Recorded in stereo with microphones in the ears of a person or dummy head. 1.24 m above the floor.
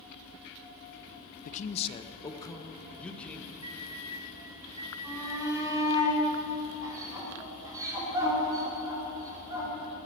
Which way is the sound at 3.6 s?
25° right (ahead or behind).